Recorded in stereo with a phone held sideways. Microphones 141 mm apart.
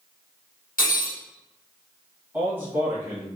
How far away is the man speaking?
About 1.0 m.